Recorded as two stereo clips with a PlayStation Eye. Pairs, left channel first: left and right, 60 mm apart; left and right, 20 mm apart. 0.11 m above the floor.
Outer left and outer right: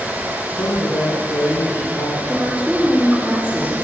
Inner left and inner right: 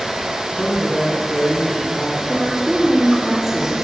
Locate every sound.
0.5 s a man speaking: 70° left (ahead or behind), 5.5 m
2.3 s a woman speaking: 15° right (ahead or behind), 4 m